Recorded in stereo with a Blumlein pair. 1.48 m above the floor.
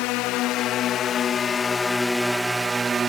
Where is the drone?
40° left; by 3.1 s 20° right.